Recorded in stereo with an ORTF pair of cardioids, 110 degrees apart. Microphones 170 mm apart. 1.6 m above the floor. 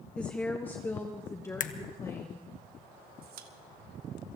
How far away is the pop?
About 1.6 m.